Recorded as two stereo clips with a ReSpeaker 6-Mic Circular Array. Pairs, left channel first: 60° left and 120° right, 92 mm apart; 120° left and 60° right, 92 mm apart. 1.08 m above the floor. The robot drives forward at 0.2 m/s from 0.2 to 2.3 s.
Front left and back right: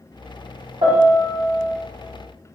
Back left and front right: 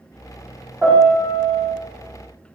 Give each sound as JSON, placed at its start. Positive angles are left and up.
{"t": 0.8, "sound": "a piano", "azimuth_deg": -135, "distance_m": 1.2}